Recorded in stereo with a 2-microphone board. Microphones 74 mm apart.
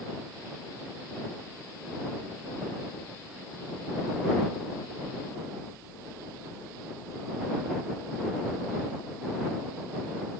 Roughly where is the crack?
I don't hear a crack.